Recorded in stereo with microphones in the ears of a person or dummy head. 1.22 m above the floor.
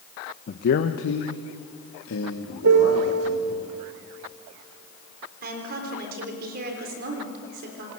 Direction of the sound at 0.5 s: 35° left (ahead or behind).